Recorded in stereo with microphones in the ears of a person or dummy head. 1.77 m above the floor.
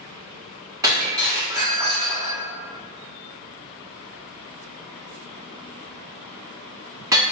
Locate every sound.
0.8 s breaking glass: 20° right (ahead or behind), 1.2 m